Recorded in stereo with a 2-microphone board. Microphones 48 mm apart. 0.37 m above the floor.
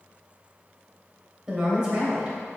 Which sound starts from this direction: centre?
A woman speaking, at 1.5 s.